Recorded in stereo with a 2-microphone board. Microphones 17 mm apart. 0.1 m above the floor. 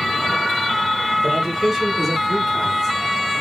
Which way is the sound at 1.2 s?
15° right (ahead or behind).